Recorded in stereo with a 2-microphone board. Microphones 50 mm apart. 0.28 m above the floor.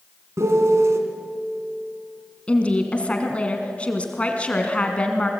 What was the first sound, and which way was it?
A piano, 70° right (ahead or behind).